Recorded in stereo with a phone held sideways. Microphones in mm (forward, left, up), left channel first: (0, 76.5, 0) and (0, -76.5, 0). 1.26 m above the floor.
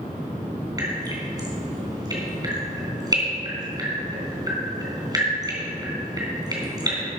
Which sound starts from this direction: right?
Dripping, at 0.8 s.